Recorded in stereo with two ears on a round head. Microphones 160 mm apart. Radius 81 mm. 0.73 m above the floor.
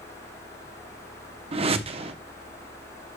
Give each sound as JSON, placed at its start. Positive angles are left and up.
{"t": 1.5, "sound": "a whoosh", "side_deg": -35, "distance_m": 0.7}